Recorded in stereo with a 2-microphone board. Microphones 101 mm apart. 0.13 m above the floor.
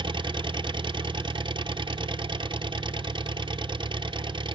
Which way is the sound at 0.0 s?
55° right (ahead or behind).